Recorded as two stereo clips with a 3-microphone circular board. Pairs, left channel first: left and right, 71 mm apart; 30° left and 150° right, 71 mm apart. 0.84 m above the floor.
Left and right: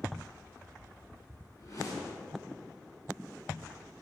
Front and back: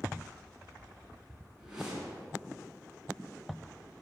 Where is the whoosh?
125° left, 4 m.